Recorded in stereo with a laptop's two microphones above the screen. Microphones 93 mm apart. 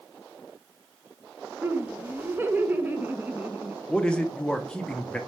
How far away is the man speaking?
About 0.5 m.